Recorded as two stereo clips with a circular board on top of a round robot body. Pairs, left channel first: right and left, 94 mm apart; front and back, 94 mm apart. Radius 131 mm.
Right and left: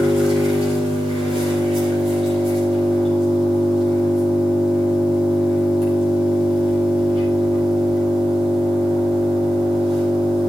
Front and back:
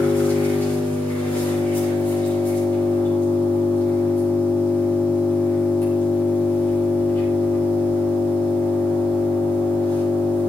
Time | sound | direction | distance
0.0 | an engine running | 70° left | 8.5 m